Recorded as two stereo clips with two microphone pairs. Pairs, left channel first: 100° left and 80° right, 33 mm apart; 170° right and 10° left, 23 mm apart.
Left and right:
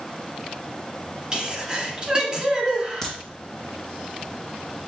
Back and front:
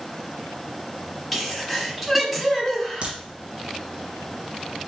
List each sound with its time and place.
1.3 s a sneeze: 70° right, 1.2 m
3.0 s a crack: 20° left, 1.4 m